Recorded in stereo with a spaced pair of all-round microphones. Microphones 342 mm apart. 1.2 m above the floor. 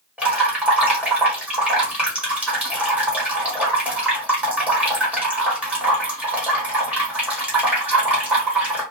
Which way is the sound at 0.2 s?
5° right (ahead or behind).